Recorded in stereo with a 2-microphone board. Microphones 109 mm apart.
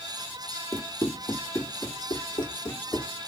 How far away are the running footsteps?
About 1.4 m.